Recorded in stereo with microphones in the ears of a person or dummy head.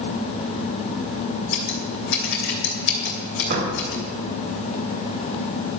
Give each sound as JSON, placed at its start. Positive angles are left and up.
{"t": 1.5, "sound": "scissors", "side_deg": 55, "distance_m": 2.5}
{"t": 3.5, "sound": "a door slam", "side_deg": -40, "distance_m": 3.0}